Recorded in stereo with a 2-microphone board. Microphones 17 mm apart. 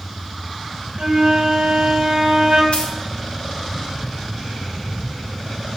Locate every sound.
1.0 s a flute: 65° right (ahead or behind), 1.8 m
2.7 s a dropped coin: 70° left (ahead or behind), 1.2 m